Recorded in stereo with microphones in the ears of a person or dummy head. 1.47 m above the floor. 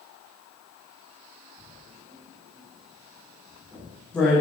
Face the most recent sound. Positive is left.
turn(degrees=5)  # may be behind; listen again after turning